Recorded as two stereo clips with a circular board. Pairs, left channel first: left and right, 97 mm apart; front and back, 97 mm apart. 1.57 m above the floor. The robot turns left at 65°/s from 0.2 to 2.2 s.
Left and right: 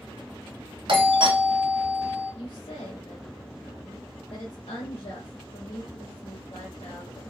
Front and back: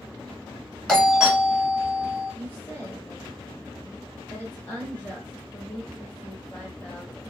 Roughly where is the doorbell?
Right.